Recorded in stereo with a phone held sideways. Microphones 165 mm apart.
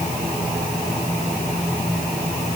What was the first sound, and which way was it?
Only background noise.